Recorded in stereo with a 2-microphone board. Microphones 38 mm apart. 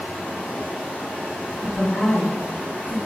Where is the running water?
45° left (ahead or behind), 1.4 m.